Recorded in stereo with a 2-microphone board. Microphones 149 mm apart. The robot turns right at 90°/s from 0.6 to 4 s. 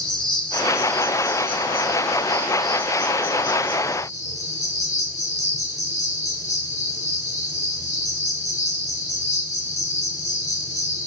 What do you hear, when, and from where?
0.0 s an insect: 175° left, 4.5 m; by 11.1 s 120° left, 4.5 m